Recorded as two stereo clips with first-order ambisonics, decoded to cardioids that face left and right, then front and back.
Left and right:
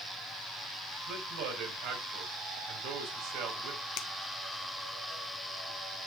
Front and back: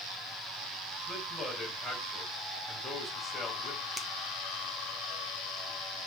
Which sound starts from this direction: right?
A man speaking, at 1.1 s.